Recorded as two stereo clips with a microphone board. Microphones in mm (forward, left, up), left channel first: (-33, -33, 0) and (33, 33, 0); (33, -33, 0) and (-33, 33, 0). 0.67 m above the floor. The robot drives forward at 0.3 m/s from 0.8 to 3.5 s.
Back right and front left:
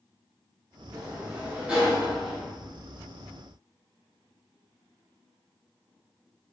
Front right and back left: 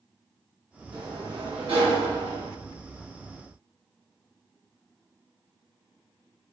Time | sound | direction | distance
0.9 | a sliding door | 105° left | 0.6 m